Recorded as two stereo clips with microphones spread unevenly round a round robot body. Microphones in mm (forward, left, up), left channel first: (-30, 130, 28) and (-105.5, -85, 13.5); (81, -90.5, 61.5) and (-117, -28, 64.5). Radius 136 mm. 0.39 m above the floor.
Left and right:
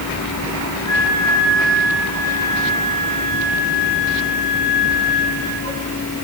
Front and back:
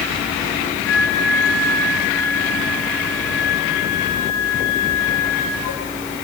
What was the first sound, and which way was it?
A flute, 5° right.